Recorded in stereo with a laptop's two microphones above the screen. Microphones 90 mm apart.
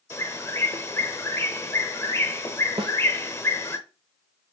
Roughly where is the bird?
Left.